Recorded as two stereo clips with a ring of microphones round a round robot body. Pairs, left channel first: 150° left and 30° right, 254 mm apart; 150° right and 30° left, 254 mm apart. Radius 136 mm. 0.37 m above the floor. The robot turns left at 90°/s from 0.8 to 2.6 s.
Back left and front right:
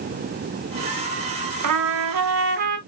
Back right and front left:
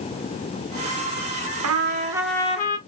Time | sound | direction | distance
1.6 | a trumpet | 5° right | 1.1 m